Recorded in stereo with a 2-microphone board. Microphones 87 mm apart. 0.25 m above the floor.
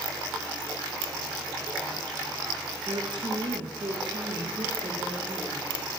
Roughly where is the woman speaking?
Right.